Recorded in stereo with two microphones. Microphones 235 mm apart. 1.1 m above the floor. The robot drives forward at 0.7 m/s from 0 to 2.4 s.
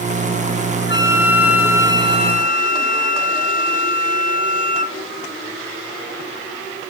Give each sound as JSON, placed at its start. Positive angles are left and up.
{"t": 0.9, "sound": "a flute", "side_deg": 45, "distance_m": 0.6}